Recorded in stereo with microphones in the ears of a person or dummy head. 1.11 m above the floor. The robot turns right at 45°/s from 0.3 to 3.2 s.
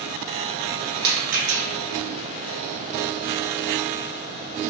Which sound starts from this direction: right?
A rattle, at 1.0 s.